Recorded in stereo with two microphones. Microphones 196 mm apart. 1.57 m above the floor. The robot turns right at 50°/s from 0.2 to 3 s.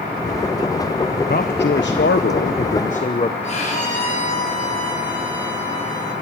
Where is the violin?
40° left (ahead or behind), 7.5 m.